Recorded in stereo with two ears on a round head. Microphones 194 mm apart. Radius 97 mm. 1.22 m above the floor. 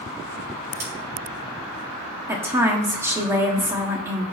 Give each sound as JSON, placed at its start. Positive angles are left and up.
{"t": 0.8, "sound": "scissors", "side_deg": -40, "distance_m": 4.0}
{"t": 2.3, "sound": "a woman speaking", "side_deg": -10, "distance_m": 1.8}